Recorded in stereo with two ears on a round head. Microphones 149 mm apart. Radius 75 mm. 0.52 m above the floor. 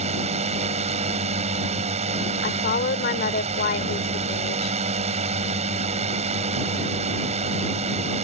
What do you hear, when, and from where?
0.0 s a drone: 40° right (ahead or behind)
2.4 s a woman speaking: 60° left (ahead or behind)